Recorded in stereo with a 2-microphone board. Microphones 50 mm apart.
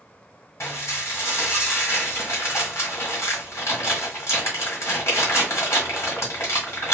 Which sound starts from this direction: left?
Dishes clattering, at 0.6 s.